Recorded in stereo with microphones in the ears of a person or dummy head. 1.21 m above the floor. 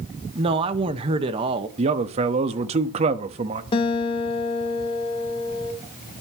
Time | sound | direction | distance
0.3 | a man speaking | 30° right (ahead or behind) | 1.4 m
1.8 | a man speaking | 35° right (ahead or behind) | 1.4 m
3.7 | a guitar | 25° left (ahead or behind) | 2.5 m